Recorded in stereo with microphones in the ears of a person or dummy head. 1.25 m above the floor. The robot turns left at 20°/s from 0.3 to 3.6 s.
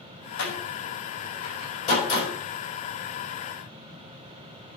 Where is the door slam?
70° left (ahead or behind), 5.5 m; by 2.3 s 30° left (ahead or behind), 5.5 m.